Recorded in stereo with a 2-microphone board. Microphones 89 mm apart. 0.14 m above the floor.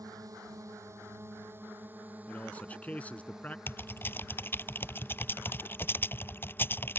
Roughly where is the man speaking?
Centre.